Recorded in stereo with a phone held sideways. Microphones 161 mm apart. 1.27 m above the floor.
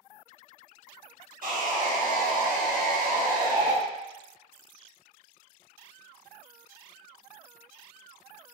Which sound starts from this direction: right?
Sawing, at 1.4 s.